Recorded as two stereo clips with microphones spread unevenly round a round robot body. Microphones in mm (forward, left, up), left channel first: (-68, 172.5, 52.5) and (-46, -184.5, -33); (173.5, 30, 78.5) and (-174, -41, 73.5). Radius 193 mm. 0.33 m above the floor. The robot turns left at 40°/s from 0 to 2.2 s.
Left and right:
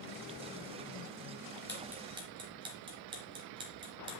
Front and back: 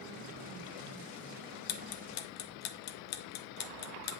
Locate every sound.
1.7 s ticking: straight ahead, 0.8 m; by 4.2 s 20° right, 0.8 m